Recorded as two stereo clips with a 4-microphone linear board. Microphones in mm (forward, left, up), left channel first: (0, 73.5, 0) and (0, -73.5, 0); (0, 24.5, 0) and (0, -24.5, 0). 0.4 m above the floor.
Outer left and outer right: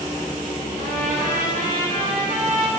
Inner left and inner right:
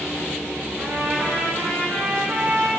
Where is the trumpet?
75° right (ahead or behind), 5 m.